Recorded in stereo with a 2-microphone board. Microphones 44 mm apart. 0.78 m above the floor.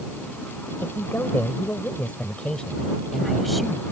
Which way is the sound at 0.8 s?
65° left (ahead or behind).